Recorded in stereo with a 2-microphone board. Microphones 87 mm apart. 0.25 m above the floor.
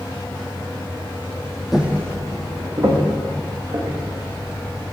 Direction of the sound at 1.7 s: 5° right (ahead or behind).